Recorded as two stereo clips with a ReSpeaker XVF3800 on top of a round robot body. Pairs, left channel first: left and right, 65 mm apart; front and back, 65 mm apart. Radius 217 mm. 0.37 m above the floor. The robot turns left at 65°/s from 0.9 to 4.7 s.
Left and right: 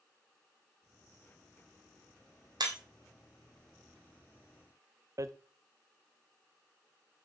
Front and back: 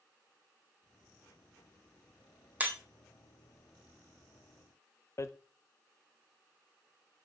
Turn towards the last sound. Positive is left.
turn(degrees=-50)